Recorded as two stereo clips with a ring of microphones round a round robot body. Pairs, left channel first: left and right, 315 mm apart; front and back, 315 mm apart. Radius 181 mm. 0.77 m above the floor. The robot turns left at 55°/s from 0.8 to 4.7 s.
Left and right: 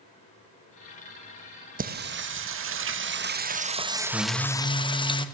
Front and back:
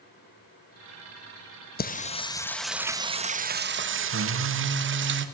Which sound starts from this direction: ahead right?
Singing, at 1.8 s.